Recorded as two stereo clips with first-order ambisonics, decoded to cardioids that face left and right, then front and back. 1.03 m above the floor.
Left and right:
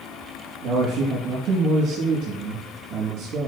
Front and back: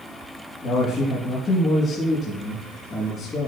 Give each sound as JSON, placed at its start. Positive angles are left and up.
{"t": 0.6, "sound": "a man speaking", "azimuth_deg": -60, "distance_m": 1.8}